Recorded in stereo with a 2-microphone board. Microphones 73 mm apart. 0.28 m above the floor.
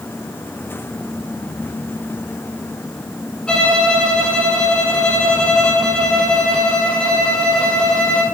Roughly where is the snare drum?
No snare drum in this recording.